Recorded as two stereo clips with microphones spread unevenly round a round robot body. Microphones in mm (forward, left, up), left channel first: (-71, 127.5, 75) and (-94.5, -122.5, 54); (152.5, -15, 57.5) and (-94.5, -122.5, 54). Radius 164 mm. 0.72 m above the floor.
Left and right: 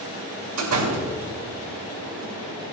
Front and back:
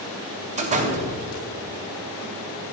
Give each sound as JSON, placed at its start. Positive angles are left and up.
{"t": 0.6, "sound": "a door slam", "azimuth_deg": -95, "distance_m": 2.5}